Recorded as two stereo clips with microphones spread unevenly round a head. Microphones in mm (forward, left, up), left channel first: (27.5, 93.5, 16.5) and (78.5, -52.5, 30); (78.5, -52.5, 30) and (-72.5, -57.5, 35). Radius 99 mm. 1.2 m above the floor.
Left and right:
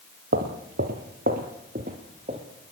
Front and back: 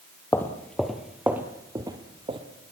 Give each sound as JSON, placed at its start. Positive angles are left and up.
{"t": 0.3, "sound": "footsteps", "azimuth_deg": -75, "distance_m": 2.5}